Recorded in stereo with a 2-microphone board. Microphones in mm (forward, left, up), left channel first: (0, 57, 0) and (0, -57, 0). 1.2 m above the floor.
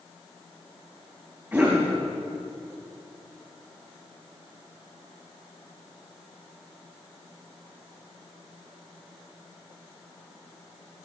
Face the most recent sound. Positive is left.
turn(degrees=-20)  # may be behind; listen again after turning